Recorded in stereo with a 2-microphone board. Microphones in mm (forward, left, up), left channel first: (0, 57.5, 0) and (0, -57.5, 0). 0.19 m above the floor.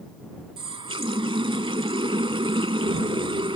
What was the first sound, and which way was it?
A running tap, 50° right (ahead or behind).